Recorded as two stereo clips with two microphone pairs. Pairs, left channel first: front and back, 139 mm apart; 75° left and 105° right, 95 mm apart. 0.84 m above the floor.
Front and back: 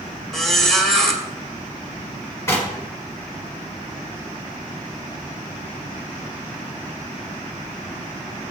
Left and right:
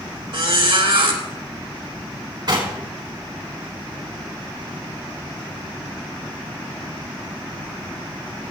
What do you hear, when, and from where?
0.3 s a squeak: 85° right, 1.8 m
2.5 s knocking: 70° right, 3 m